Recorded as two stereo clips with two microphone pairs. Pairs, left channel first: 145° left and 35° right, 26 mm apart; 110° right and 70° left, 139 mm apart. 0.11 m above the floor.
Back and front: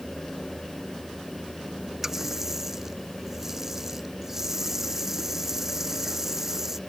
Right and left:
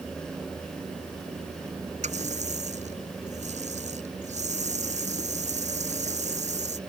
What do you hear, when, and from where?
2.0 s a running tap: 45° left